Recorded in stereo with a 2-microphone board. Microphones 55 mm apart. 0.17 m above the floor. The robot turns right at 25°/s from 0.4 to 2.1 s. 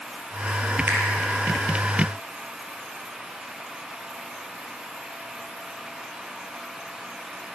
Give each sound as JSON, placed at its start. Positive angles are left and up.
{"t": 0.9, "sound": "a finger snap", "side_deg": -40, "distance_m": 4.5}